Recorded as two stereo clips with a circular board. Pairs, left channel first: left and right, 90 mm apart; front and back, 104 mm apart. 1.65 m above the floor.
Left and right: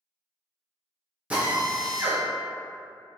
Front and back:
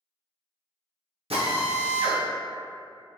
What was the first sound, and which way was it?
A drill, 165° right.